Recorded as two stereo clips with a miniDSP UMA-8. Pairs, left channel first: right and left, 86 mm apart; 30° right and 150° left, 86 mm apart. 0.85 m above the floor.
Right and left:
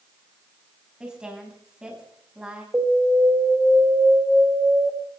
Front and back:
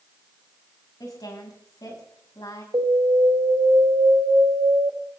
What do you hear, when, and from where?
1.0 s a woman speaking: 10° left, 5 m
2.7 s an alarm: 155° left, 3.5 m